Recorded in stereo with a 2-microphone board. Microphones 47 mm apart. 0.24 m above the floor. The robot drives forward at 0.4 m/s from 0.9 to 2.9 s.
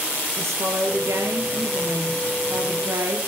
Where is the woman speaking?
80° right, 5 m.